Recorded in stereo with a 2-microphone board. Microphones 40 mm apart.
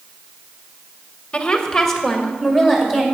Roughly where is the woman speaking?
Left.